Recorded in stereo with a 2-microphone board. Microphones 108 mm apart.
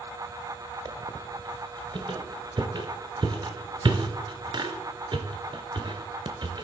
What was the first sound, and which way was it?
A squeak, 45° right (ahead or behind).